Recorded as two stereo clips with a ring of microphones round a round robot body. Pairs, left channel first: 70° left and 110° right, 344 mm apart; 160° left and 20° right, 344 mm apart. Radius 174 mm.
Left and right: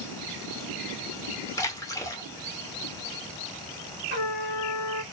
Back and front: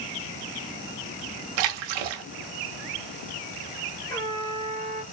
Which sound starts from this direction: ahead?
A splash, at 1.6 s.